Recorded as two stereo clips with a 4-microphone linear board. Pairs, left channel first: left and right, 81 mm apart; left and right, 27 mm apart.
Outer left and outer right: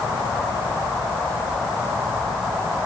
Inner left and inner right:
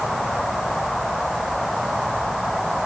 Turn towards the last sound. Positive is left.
No sound to turn to.